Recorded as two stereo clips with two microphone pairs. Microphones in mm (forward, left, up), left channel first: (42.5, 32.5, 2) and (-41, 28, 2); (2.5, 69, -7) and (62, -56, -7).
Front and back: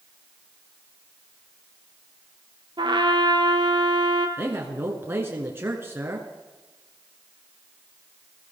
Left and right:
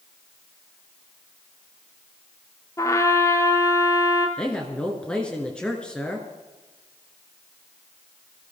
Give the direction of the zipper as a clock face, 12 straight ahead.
I don't hear a zipper.